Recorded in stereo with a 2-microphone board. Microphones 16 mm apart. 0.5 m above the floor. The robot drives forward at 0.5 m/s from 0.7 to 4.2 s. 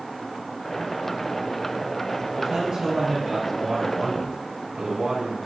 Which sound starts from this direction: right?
A man speaking, at 2.4 s.